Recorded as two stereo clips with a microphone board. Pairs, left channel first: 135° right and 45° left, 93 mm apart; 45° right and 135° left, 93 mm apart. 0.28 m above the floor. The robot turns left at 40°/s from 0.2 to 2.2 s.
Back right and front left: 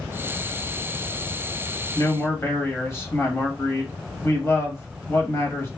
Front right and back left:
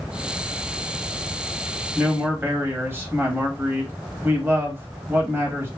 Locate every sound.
1.9 s a man speaking: 170° right, 1.4 m; by 5.7 s straight behind, 1.4 m